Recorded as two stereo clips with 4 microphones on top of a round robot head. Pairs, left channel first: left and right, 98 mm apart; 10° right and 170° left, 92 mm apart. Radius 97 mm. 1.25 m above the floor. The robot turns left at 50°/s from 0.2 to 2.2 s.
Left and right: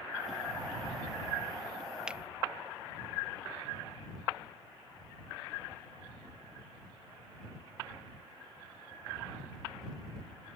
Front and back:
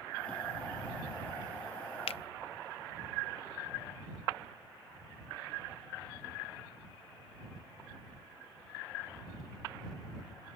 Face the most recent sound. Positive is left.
turn(degrees=-15)